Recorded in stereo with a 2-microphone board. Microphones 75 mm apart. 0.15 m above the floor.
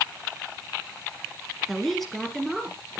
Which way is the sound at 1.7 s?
Centre (ahead or behind).